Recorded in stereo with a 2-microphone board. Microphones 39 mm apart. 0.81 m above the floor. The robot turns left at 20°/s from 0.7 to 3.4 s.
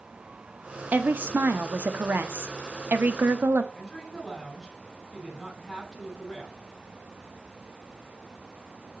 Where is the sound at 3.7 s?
Centre (ahead or behind), 7 m.